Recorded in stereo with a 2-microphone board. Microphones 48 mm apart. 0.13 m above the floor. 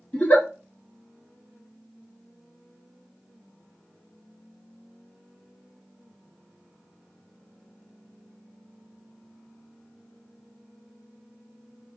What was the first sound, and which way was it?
A giggle, 30° left (ahead or behind).